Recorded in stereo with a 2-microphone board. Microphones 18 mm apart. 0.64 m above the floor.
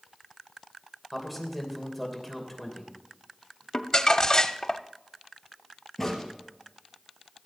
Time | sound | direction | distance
1.1 | a man speaking | 5° right (ahead or behind) | 3 m
3.7 | crumpling | 40° left (ahead or behind) | 0.6 m
6.0 | a crack | 5° left (ahead or behind) | 4 m